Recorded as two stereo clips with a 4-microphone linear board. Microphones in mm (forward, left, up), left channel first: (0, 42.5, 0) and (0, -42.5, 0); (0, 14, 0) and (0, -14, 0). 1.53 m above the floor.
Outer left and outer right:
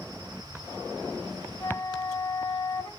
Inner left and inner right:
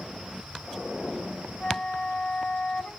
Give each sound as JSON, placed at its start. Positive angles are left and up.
{"t": 1.6, "sound": "a flute", "side_deg": 55, "distance_m": 2.0}